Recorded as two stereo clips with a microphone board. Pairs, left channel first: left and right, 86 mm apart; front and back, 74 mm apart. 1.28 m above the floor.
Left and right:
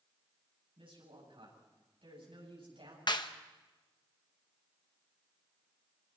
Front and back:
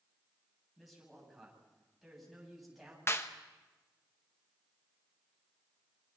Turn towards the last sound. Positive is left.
turn(degrees=55)